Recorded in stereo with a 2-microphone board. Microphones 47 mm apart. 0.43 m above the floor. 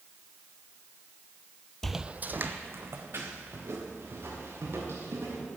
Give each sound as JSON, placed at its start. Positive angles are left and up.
{"t": 1.8, "sound": "footsteps", "side_deg": 10, "distance_m": 0.5}